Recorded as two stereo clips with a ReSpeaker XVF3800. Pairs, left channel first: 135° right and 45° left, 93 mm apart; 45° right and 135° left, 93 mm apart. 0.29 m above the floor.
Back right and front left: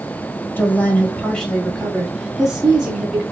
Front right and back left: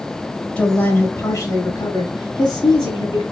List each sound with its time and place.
0.6 s a woman speaking: 105° right, 1.0 m; by 3.2 s 35° right, 1.8 m